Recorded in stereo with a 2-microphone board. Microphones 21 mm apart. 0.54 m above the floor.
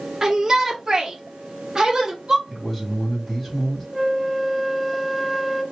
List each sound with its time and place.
0.2 s a shout: 25° right (ahead or behind), 0.9 m; by 2.4 s 15° right (ahead or behind), 1.6 m
2.5 s a man speaking: centre (ahead or behind), 3.5 m
3.9 s a flute: 5° right (ahead or behind), 0.7 m